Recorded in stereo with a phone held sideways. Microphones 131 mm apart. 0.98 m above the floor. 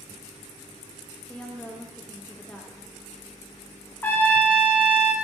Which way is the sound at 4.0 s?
15° left (ahead or behind).